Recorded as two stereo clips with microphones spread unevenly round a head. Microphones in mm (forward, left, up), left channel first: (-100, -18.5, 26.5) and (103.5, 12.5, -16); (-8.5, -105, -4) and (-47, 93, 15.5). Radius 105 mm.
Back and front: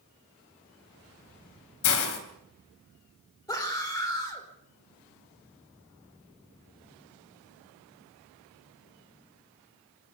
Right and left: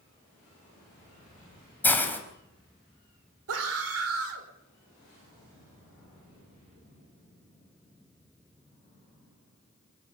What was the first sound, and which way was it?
A hiss, 160° right.